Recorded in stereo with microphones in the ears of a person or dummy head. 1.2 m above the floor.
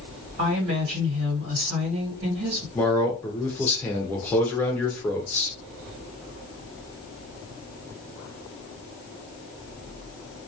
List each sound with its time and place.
0.4 s a woman speaking: 60° right (ahead or behind), 1.4 m
2.8 s a man speaking: 10° left (ahead or behind), 0.6 m